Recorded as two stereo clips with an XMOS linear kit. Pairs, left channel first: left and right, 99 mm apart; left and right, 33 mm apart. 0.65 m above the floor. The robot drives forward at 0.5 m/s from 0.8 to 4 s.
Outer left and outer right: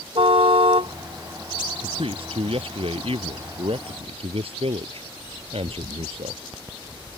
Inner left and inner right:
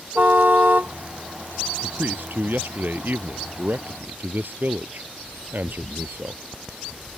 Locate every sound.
0.1 s a car horn: 65° right (ahead or behind)
1.8 s a man speaking: 65° right (ahead or behind); by 6.4 s 70° right (ahead or behind)